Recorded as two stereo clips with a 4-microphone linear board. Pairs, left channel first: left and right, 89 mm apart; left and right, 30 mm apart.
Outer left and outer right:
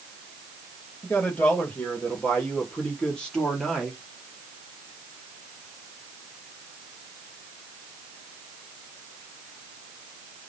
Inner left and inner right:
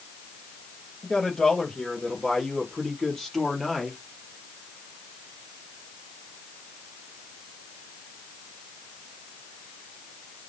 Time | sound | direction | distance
1.0 | a man speaking | 20° left (ahead or behind) | 6 m